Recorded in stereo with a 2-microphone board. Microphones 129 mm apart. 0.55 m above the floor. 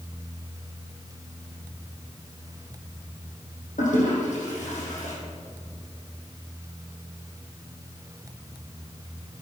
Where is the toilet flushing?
75° left (ahead or behind), 4 m.